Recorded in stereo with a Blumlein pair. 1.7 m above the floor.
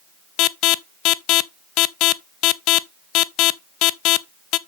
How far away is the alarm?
About 0.5 m.